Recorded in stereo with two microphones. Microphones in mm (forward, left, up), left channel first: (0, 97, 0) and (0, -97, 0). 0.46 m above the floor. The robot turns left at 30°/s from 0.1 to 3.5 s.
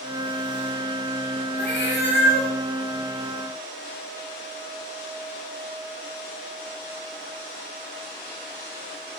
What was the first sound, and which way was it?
A cat meowing, 55° left (ahead or behind).